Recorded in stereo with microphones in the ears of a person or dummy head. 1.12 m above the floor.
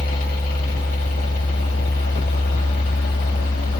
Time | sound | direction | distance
0.0 | a machine running | 50° left (ahead or behind) | 3 m